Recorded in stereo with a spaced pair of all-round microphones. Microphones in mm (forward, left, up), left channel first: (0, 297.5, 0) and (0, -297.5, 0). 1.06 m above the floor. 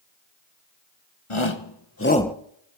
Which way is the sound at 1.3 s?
55° left (ahead or behind).